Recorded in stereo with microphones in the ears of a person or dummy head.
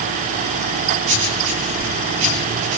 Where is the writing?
75° right (ahead or behind), 8 m.